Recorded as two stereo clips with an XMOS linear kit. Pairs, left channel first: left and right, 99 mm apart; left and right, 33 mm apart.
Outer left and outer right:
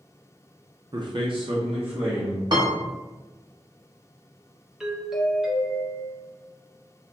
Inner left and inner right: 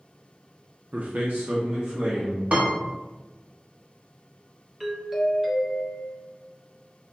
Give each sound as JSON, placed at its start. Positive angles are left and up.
{"t": 0.9, "sound": "a man speaking", "side_deg": -45, "distance_m": 0.5}
{"t": 2.5, "sound": "a piano", "side_deg": -45, "distance_m": 1.0}
{"t": 4.8, "sound": "a doorbell", "side_deg": -5, "distance_m": 0.8}